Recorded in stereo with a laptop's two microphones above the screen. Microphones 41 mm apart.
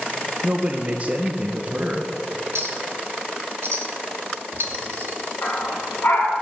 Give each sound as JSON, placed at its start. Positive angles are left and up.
{"t": 0.4, "sound": "a man speaking", "side_deg": -35, "distance_m": 0.7}
{"t": 2.5, "sound": "a clink", "side_deg": -75, "distance_m": 1.1}
{"t": 5.4, "sound": "a dog barking", "side_deg": 60, "distance_m": 3.0}